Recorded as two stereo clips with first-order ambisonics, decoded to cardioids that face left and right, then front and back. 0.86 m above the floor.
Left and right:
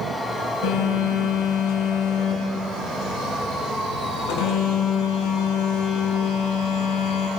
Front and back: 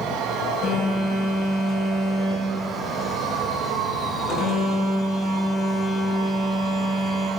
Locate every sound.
0.6 s a phone buzzing: 70° left, 6 m